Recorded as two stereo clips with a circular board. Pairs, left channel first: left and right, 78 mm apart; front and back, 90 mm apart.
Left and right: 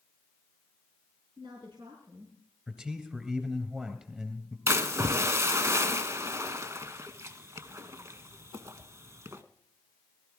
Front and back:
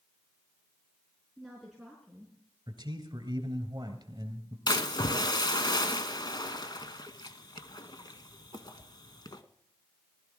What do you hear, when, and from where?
1.4 s a woman speaking: 90° right, 4.5 m
2.7 s a man speaking: 165° right, 2.5 m
4.7 s a splash: 40° right, 0.9 m